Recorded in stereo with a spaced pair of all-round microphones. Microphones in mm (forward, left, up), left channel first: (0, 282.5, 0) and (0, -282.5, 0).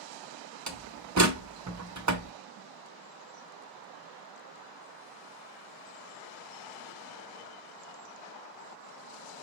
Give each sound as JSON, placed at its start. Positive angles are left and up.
{"t": 0.7, "sound": "a door slam", "side_deg": -30, "distance_m": 0.8}